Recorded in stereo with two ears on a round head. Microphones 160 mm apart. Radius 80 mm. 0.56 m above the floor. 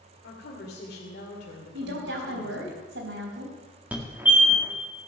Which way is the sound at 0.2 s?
60° left (ahead or behind).